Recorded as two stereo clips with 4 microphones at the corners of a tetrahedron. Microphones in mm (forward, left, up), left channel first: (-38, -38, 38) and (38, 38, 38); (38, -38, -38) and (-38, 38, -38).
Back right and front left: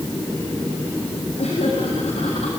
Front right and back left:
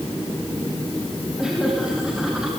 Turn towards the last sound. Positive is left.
turn(degrees=-140)